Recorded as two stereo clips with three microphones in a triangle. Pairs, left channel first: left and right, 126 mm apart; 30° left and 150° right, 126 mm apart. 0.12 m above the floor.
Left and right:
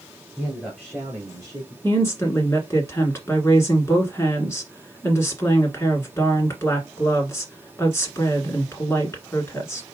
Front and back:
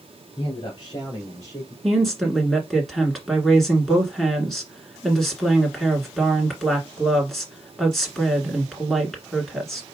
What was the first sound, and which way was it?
A man speaking, 5° left.